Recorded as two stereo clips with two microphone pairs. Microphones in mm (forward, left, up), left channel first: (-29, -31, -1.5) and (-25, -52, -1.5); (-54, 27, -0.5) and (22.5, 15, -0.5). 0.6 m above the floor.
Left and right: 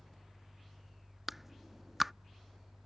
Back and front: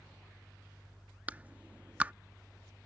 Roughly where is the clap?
Ahead right.